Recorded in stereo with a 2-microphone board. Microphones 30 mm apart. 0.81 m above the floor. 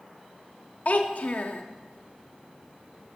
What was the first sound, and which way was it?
A child speaking, 55° left (ahead or behind).